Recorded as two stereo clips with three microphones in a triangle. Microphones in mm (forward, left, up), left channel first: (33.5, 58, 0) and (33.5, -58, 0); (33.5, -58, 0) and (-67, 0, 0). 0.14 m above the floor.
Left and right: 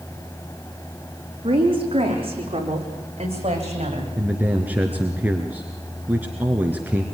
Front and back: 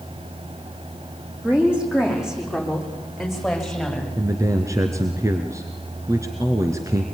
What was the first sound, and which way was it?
A woman speaking, 130° right.